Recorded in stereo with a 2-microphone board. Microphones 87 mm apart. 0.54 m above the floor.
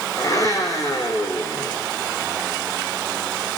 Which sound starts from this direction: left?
A blender, at 0.2 s.